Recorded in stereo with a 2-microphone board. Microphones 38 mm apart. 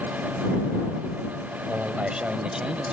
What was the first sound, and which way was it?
A man speaking, 40° right (ahead or behind).